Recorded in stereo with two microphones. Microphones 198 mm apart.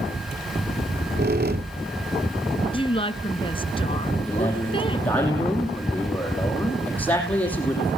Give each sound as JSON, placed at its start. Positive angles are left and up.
{"t": 0.8, "sound": "a squeak", "side_deg": -55, "distance_m": 0.9}
{"t": 2.7, "sound": "a woman speaking", "side_deg": 25, "distance_m": 1.5}
{"t": 4.2, "sound": "a man speaking", "side_deg": 10, "distance_m": 7.5}